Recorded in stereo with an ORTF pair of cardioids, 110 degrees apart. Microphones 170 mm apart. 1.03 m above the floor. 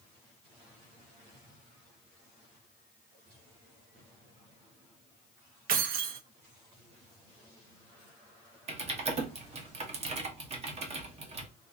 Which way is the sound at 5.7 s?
60° right.